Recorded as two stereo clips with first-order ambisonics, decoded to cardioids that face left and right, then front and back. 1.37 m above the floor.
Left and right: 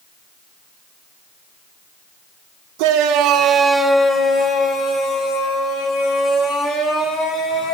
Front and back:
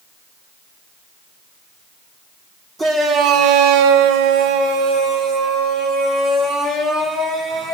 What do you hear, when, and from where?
2.8 s a shout: 105° right, 0.9 m; by 7.8 s 135° left, 4.5 m